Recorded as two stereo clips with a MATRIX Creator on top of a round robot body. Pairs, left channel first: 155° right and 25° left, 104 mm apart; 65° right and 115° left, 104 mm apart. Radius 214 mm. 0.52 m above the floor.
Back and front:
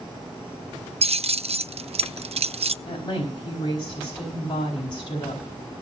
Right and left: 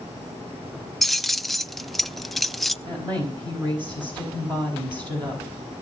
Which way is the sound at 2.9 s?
155° left.